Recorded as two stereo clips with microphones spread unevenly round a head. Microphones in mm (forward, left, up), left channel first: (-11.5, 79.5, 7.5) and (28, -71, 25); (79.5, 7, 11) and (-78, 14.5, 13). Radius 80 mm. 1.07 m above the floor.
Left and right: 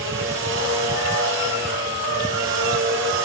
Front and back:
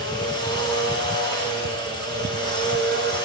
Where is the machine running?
70° right, 5.5 m.